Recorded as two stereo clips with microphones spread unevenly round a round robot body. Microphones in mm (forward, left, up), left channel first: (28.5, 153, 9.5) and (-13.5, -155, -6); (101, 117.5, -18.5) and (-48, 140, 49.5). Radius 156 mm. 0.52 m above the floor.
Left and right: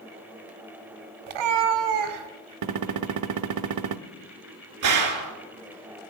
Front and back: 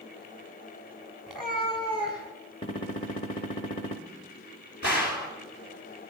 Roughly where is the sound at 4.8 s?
Ahead right.